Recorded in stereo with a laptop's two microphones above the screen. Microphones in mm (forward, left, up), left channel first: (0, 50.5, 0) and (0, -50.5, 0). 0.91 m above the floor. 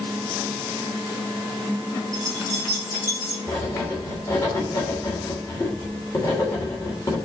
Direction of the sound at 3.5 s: 25° left (ahead or behind).